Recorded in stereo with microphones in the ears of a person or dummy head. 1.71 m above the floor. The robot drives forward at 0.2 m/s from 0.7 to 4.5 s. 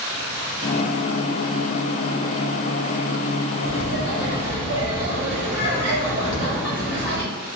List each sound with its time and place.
3.6 s laughter: 80° left, 1.5 m
6.2 s an explosion: 25° left (ahead or behind), 0.6 m